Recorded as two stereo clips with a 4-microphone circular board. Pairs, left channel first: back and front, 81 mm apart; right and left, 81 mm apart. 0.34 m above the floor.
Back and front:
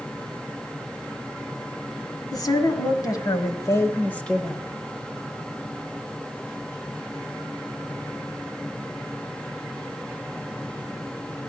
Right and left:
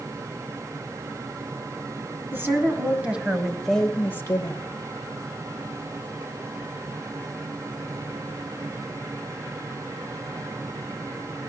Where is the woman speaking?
150° left, 2.5 m; by 4.6 s 85° right, 1.2 m.